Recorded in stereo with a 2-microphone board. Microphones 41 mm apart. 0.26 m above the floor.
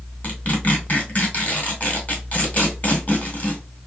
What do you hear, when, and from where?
0.2 s tearing paper: 35° left (ahead or behind), 1.9 m